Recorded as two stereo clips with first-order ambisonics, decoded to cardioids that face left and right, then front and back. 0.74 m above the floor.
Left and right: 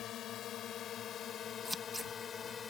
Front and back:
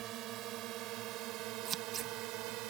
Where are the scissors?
Straight behind.